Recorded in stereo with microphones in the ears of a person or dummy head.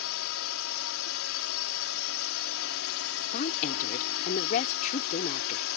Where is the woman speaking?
45° left (ahead or behind).